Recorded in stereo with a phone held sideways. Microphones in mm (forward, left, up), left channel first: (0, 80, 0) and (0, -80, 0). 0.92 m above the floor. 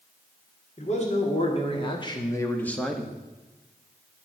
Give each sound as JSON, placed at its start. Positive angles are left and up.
{"t": 0.8, "sound": "a man speaking", "side_deg": 50, "distance_m": 2.5}